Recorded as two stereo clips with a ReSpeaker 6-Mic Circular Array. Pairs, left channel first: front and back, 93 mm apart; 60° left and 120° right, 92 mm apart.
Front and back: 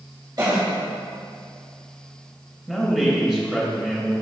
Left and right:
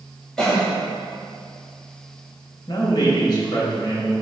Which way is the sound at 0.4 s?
145° left.